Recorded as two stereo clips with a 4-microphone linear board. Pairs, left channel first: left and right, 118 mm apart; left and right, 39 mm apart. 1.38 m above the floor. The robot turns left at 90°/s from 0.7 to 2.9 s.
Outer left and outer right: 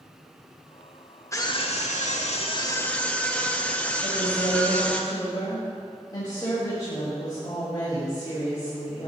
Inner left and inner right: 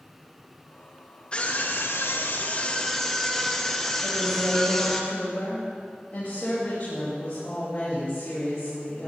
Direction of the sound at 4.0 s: 35° left (ahead or behind).